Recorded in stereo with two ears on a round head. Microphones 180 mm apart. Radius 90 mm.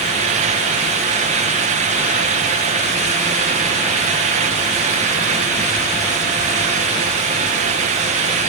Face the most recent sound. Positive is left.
No sound to turn to.